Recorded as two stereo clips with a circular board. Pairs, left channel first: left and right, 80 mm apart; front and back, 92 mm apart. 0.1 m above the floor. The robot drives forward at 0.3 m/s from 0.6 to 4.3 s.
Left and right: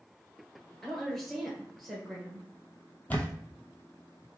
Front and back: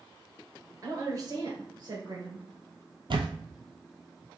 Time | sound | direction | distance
0.8 | a woman speaking | 175° left | 1.5 m
3.1 | a camera shutter | 160° left | 0.6 m